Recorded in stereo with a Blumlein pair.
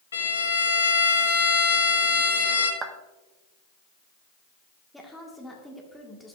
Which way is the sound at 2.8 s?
25° right.